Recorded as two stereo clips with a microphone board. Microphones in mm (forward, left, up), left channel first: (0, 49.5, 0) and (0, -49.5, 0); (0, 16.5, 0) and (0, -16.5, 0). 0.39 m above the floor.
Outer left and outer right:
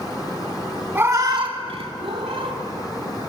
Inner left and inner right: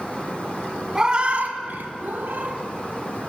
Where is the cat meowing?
25° right (ahead or behind), 0.6 m; by 2.6 s 65° right (ahead or behind), 0.9 m.